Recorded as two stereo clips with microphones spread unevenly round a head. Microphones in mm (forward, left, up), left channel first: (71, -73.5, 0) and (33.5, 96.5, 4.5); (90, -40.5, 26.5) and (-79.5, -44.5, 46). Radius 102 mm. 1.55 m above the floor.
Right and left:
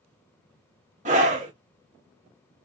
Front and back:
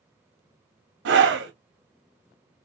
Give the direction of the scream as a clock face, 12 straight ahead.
7 o'clock.